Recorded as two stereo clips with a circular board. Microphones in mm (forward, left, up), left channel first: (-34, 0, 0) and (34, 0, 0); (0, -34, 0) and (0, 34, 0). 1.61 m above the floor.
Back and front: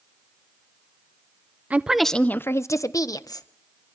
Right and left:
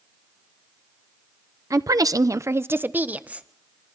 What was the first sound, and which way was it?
A woman speaking, 65° left.